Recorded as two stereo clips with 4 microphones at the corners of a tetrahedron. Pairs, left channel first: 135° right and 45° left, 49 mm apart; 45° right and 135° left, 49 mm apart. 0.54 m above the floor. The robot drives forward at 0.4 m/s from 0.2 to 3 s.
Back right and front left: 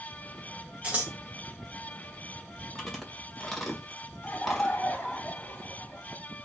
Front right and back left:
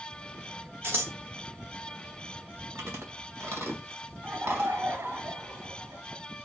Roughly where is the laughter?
Behind.